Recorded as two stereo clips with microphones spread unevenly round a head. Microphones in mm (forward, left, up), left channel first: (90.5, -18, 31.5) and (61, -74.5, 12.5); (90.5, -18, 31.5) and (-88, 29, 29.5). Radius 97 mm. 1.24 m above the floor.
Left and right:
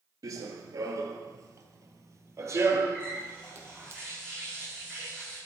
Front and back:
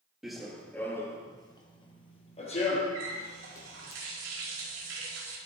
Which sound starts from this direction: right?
Running footsteps, at 0.2 s.